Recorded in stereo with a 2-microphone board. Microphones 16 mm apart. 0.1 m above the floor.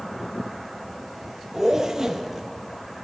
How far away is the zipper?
About 0.6 m.